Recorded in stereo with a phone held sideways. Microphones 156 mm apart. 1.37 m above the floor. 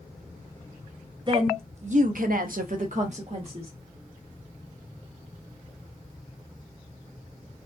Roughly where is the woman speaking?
Right.